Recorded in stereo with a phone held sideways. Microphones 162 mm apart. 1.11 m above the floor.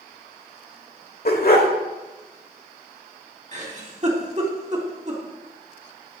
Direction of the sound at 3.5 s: 45° right (ahead or behind).